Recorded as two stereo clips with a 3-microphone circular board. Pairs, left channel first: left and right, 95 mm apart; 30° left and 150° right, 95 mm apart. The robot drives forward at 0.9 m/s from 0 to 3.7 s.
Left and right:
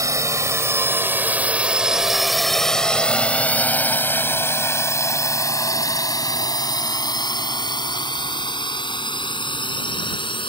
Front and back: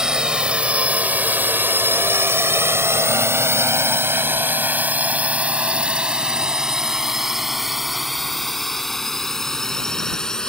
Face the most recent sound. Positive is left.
turn(degrees=115)